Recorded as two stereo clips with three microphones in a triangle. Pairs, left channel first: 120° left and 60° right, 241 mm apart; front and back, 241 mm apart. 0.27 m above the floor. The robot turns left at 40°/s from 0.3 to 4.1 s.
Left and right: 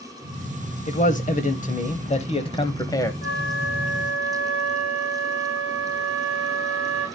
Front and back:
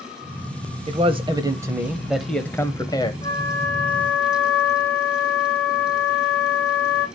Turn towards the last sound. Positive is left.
turn(degrees=25)